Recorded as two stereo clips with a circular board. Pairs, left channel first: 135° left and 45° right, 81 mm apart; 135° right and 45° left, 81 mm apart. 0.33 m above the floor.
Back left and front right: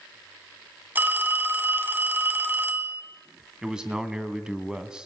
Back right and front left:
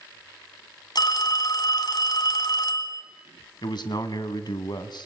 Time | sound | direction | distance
0.9 | a phone ringing | 110° right | 1.7 m
3.6 | a man speaking | 125° right | 2 m